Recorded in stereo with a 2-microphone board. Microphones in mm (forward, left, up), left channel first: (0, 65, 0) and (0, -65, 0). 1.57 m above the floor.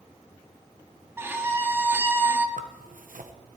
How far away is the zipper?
About 1.3 m.